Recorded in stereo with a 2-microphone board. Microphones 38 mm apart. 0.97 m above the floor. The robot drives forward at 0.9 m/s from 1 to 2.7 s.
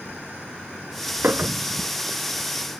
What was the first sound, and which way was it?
A clink, 65° right (ahead or behind).